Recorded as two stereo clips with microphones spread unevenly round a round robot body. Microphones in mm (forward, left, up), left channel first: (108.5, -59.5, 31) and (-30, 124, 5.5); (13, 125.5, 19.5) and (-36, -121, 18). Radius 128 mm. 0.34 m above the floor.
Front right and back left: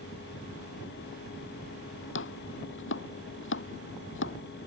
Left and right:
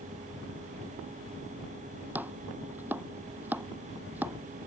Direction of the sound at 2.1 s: 20° right.